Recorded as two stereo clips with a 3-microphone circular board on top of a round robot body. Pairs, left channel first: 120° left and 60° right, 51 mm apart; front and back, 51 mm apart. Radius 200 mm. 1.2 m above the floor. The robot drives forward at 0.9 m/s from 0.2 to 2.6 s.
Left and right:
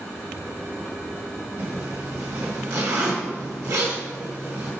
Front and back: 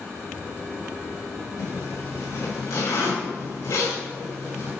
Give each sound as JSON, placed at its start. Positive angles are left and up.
{"t": 1.6, "sound": "a zipper", "azimuth_deg": -20, "distance_m": 2.5}